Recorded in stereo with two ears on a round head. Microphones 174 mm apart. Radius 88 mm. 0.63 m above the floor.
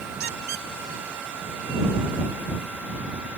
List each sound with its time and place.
0.2 s a squeak: 55° right (ahead or behind)